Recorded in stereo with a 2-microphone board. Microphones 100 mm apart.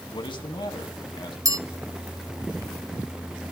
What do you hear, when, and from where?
0.1 s a man speaking: 60° left (ahead or behind), 2 m
1.4 s a bell: 40° right (ahead or behind), 0.7 m